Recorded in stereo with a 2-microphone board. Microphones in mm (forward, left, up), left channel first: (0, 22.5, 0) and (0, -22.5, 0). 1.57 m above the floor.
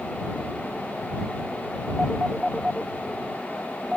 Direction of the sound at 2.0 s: 15° right (ahead or behind).